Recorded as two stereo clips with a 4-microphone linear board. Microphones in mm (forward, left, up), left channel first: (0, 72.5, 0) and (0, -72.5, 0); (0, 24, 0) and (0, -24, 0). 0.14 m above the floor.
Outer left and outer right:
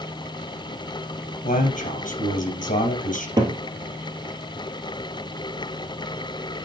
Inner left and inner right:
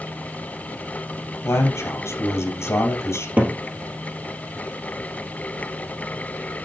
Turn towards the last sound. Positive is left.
turn(degrees=-30)  # may be behind; listen again after turning